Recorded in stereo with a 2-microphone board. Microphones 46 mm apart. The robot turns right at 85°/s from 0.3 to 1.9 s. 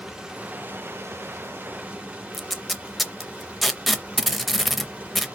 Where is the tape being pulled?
Centre (ahead or behind), 0.5 m.